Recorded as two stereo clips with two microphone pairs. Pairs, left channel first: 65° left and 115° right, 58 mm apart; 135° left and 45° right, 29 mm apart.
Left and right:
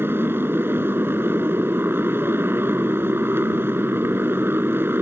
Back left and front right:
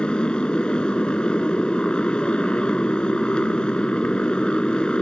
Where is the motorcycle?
165° right.